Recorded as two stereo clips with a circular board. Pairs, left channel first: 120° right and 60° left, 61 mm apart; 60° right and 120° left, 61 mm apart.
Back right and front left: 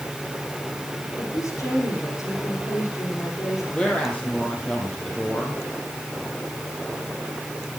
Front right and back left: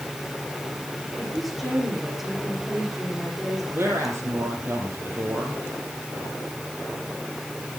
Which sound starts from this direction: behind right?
A woman speaking, at 1.2 s.